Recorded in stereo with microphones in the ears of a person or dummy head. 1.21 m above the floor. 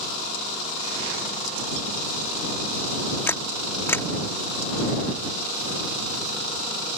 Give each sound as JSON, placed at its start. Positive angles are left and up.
{"t": 3.3, "sound": "a camera shutter", "side_deg": 10}